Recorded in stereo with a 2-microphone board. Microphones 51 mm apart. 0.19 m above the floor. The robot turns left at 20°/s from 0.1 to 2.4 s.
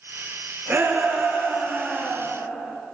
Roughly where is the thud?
I don't hear a thud.